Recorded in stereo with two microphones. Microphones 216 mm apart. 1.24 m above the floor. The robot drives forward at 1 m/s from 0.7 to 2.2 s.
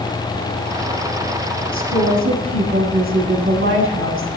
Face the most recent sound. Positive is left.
turn(degrees=-65)  # may be behind; listen again after turning